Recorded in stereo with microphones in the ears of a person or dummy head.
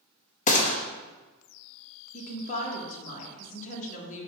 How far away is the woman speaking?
About 1.4 m.